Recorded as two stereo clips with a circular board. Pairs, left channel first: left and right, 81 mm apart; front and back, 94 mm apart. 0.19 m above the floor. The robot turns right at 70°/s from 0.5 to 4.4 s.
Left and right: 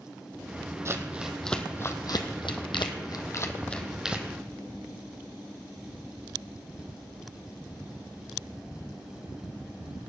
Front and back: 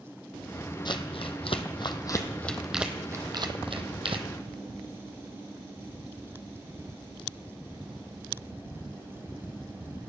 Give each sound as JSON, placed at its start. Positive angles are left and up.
{"t": 0.8, "sound": "crumpling", "azimuth_deg": -35, "distance_m": 1.4}